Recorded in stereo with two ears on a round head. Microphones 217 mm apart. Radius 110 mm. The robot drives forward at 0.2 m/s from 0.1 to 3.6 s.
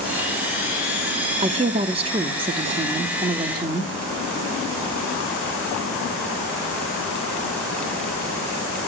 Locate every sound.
1.4 s a woman speaking: 25° right (ahead or behind), 0.7 m; by 3.9 s 15° right (ahead or behind), 0.9 m